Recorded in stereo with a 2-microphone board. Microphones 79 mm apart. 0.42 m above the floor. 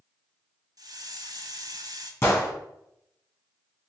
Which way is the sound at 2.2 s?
35° left (ahead or behind).